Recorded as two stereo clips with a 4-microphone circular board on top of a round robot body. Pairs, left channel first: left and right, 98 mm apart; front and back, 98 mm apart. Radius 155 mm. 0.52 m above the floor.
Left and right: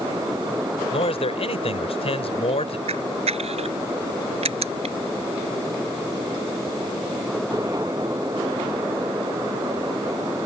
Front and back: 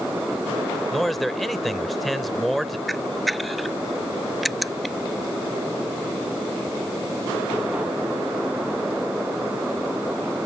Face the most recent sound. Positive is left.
turn(degrees=-90)